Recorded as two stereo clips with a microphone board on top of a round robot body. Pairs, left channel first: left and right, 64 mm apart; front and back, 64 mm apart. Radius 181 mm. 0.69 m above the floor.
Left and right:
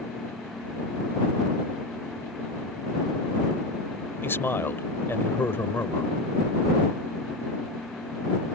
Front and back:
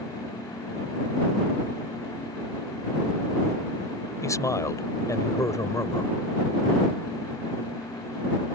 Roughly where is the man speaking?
Ahead left.